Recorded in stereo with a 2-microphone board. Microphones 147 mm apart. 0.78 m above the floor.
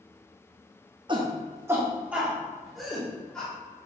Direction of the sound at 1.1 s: 30° right (ahead or behind).